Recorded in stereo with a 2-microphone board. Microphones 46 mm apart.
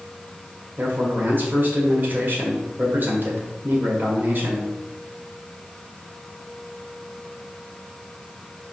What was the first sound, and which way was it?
A man speaking, 45° right (ahead or behind).